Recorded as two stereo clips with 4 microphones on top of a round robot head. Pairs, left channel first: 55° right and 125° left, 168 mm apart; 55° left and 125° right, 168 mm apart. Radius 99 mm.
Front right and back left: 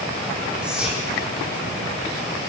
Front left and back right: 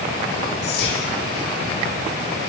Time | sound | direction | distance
0.6 | whispering | 40° left | 2.5 m